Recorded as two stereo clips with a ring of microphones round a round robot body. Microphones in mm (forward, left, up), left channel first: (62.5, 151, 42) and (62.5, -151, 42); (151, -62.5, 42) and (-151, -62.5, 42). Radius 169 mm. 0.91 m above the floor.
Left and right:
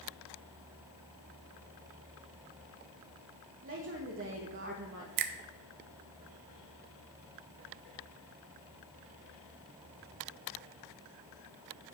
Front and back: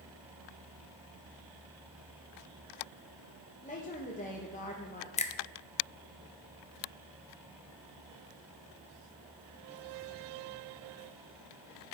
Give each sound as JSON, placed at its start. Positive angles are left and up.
{"t": 3.6, "sound": "a woman speaking", "azimuth_deg": -60, "distance_m": 1.1}
{"t": 5.2, "sound": "a finger snap", "azimuth_deg": -70, "distance_m": 0.7}